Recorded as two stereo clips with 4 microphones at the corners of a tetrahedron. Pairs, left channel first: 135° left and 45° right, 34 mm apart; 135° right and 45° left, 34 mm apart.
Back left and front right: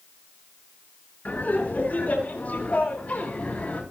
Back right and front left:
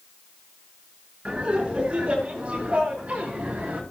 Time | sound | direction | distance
1.2 | laughter | 100° left | 7.5 m